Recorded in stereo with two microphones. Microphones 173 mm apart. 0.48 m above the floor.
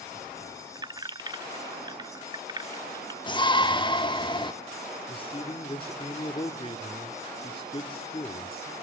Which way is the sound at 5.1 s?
30° left (ahead or behind).